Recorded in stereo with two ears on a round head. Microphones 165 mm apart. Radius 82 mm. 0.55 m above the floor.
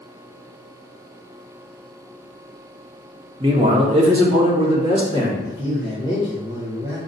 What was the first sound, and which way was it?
A man speaking, 25° right (ahead or behind).